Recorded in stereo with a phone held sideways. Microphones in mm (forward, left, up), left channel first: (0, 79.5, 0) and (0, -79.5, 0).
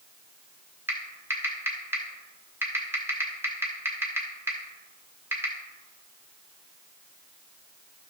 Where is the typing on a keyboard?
15° right (ahead or behind), 1.8 m.